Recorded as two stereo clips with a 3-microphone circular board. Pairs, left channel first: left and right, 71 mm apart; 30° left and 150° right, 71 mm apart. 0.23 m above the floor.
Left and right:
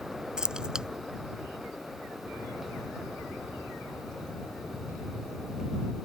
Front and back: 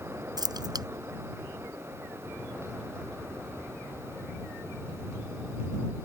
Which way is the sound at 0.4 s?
170° right.